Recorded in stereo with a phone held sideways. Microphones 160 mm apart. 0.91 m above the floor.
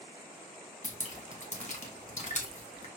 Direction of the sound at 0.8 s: 45° left (ahead or behind).